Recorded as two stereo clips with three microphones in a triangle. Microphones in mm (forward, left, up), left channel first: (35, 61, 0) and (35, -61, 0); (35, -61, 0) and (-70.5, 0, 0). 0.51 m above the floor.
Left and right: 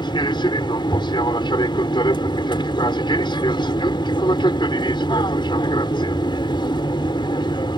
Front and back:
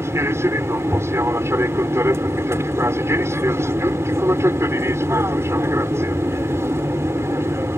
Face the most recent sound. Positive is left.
turn(degrees=95)